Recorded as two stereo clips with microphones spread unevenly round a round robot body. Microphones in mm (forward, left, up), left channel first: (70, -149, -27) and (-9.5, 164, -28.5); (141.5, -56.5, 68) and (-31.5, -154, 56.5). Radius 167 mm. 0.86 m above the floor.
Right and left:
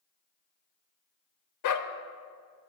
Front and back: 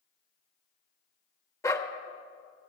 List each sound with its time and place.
1.6 s a dog barking: 45° right, 0.9 m